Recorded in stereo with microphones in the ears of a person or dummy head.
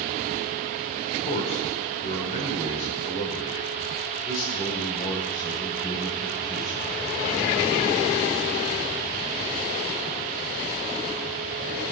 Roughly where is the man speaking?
Left.